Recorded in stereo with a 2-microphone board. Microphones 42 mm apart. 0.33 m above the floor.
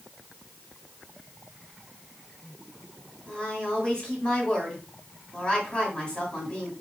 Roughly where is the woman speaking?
Left.